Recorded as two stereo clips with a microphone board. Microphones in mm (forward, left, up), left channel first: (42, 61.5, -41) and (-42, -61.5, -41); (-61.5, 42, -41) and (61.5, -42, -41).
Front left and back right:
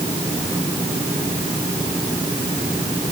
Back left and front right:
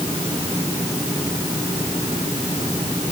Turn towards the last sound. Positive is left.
No sound to turn to.